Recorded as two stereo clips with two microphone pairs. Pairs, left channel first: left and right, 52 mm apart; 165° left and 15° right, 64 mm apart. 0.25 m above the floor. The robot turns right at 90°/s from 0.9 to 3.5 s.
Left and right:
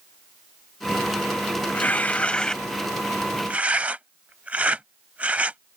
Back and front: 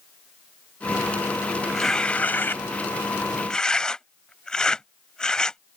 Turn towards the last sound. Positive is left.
turn(degrees=-125)